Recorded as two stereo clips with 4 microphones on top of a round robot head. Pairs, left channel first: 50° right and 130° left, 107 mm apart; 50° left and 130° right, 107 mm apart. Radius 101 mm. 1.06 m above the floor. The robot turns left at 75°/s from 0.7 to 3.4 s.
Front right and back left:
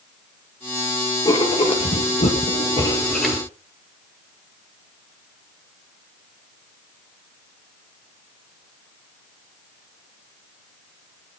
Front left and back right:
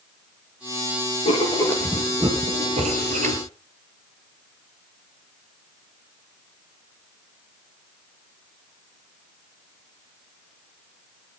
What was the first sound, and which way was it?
Writing, 15° left.